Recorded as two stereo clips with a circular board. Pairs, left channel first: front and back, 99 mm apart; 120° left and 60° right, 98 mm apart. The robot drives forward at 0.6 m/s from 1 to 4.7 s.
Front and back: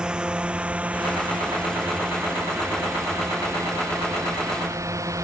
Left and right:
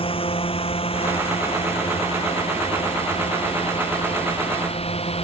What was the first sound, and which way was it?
A drone, 100° left.